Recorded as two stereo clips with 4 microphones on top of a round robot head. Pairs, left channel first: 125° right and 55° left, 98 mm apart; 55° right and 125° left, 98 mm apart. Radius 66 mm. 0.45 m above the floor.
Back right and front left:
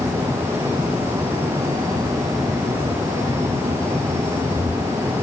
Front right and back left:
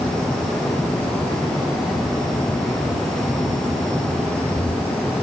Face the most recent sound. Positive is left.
No sound to turn to.